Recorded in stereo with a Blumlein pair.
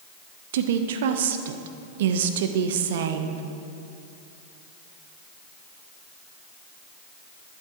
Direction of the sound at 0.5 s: 55° right.